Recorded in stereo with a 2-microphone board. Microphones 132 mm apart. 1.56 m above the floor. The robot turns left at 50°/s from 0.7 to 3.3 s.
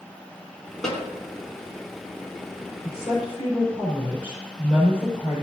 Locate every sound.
0.8 s a snare drum: 5° left (ahead or behind), 3 m; by 1.0 s 10° left (ahead or behind), 3 m
2.8 s a woman speaking: 70° left (ahead or behind), 4.5 m; by 5.4 s 45° left (ahead or behind), 4.5 m